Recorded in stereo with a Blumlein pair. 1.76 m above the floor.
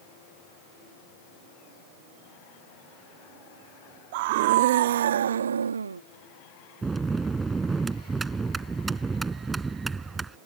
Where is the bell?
15° right.